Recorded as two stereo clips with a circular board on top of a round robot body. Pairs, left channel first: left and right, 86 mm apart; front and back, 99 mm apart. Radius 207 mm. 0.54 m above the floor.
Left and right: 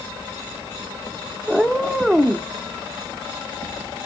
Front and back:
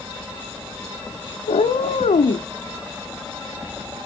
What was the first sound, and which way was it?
A cat meowing, straight ahead.